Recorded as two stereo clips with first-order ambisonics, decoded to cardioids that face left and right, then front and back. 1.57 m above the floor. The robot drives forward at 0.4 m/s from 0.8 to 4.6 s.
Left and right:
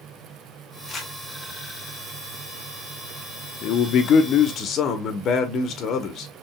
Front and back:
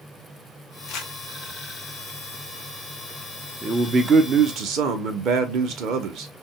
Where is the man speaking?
110° left, 0.6 m; by 6.3 s 140° left, 0.8 m.